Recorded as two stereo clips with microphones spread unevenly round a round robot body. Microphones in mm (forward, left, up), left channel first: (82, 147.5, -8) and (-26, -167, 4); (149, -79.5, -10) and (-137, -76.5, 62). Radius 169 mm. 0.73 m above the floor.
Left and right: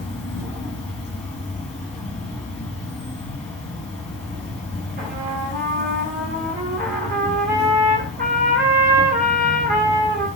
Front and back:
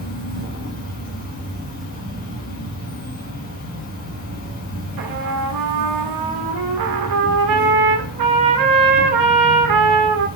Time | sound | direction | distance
0.0 | an insect | 15° right | 2.0 m
5.0 | a trumpet | 175° right | 0.6 m